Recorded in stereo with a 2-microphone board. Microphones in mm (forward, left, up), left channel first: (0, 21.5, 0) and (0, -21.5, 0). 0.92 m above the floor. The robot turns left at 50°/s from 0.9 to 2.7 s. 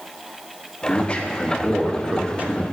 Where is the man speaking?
35° left, 0.9 m; by 2.6 s 50° right, 0.9 m.